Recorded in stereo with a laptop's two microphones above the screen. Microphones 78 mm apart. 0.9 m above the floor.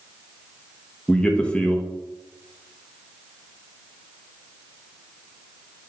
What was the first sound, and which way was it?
A man speaking, 10° left (ahead or behind).